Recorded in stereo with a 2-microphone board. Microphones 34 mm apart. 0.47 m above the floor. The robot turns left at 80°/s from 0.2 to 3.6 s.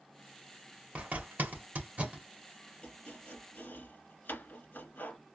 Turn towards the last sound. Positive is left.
turn(degrees=85)